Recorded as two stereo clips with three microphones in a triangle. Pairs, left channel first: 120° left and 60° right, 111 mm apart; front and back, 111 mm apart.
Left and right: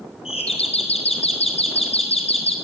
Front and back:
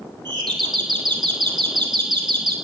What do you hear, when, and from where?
0.2 s a doorbell: 135° left, 4.5 m